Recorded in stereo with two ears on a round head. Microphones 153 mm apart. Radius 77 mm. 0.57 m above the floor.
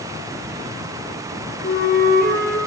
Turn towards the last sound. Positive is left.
turn(degrees=55)  # may be behind; listen again after turning